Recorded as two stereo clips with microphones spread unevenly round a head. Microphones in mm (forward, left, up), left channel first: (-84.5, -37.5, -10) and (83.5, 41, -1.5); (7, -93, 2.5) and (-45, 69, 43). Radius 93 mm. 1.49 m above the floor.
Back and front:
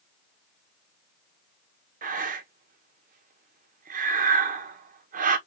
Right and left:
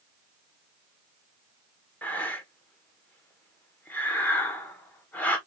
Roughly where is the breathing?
Ahead.